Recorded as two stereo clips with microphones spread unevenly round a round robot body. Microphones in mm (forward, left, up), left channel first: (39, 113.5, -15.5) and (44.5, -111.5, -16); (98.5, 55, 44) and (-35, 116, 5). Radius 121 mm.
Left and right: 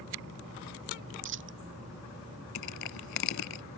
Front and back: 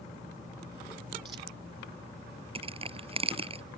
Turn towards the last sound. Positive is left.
turn(degrees=100)